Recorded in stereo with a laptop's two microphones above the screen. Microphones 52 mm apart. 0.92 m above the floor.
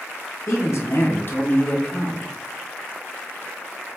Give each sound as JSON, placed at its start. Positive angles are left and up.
{"t": 0.5, "sound": "a man speaking", "side_deg": 55, "distance_m": 1.0}